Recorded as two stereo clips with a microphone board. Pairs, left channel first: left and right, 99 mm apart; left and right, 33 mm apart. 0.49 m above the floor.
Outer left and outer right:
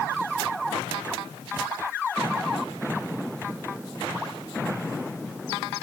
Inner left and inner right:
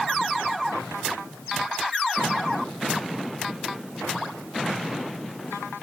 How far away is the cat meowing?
I don't hear a cat meowing.